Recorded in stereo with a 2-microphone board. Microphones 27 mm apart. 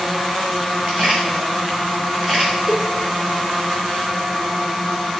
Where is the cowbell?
20° right (ahead or behind), 1.5 m.